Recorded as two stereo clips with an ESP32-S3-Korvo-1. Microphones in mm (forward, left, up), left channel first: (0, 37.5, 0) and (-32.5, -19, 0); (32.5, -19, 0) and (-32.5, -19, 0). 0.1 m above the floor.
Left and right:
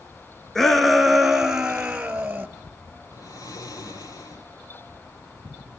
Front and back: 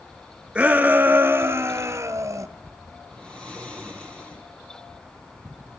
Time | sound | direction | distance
0.6 | a shout | 135° left | 1.4 m
3.1 | snoring | 75° left | 3 m